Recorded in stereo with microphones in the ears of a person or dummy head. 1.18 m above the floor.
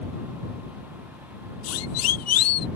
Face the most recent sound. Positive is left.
turn(degrees=80)